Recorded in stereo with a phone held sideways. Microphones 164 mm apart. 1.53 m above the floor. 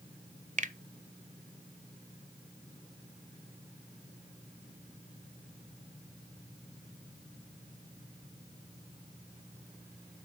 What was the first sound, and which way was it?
A finger snap, 50° right (ahead or behind).